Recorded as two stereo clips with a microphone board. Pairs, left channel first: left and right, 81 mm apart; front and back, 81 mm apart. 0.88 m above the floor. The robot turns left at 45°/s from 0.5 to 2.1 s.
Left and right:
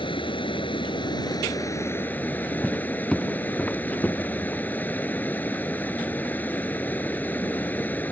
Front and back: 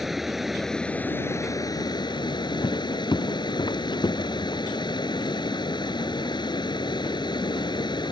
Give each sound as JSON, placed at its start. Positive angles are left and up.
{"t": 0.0, "sound": "running water", "azimuth_deg": 90}
{"t": 2.6, "sound": "footsteps", "azimuth_deg": 10}